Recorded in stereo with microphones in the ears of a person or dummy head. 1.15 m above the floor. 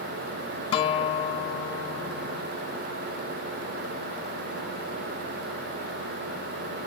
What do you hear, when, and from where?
0.7 s a guitar: 45° left (ahead or behind)